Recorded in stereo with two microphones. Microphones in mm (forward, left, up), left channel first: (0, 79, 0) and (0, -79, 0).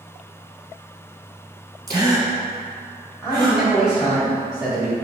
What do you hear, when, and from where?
1.9 s a gasp: 25° right (ahead or behind), 0.9 m
3.2 s a man speaking: 5° right (ahead or behind), 1.3 m